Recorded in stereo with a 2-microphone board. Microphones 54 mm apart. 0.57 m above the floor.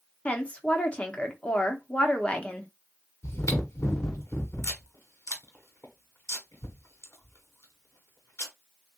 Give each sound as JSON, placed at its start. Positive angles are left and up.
{"t": 0.2, "sound": "a woman speaking", "side_deg": 20, "distance_m": 0.8}
{"t": 3.2, "sound": "chewing", "side_deg": 65, "distance_m": 1.3}